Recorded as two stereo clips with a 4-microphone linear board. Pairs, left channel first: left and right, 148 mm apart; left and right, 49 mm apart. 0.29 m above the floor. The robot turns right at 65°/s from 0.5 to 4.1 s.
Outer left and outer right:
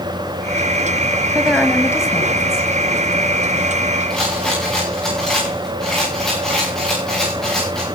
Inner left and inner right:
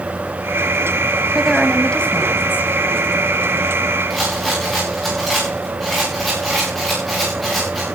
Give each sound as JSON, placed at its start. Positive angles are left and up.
{"t": 1.4, "sound": "a woman speaking", "azimuth_deg": -15, "distance_m": 1.7}
{"t": 4.1, "sound": "a rattle", "side_deg": 5, "distance_m": 9.0}